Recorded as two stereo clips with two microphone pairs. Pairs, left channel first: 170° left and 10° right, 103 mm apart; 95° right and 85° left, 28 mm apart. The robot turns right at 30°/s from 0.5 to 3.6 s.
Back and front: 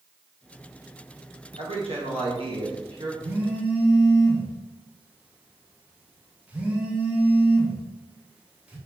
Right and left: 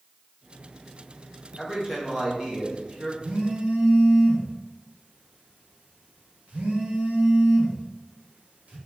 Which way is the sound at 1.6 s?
10° right.